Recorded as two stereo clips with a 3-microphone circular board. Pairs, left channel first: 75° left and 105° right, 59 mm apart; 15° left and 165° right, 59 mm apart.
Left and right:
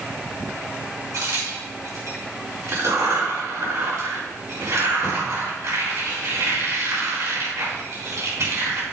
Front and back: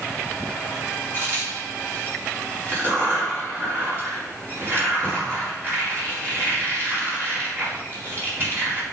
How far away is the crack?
About 4 m.